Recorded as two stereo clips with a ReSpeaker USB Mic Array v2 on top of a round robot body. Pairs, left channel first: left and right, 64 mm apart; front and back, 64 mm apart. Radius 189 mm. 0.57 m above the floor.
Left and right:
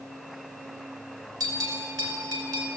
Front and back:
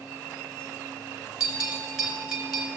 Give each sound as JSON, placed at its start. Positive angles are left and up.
{"t": 1.4, "sound": "a bell", "azimuth_deg": -100, "distance_m": 5.0}